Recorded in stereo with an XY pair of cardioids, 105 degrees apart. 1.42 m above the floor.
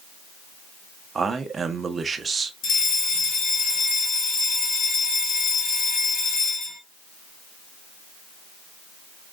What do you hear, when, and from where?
1.1 s a man speaking: 35° right, 0.9 m
2.6 s a fire alarm: 50° left, 3 m